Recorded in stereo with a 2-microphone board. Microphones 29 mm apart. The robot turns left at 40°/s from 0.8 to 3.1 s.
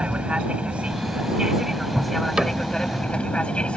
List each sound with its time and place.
0.0 s an aircraft: 130° right; by 3.8 s 140° left
2.4 s a cupboard door: 25° right (ahead or behind); by 2.6 s 35° right (ahead or behind)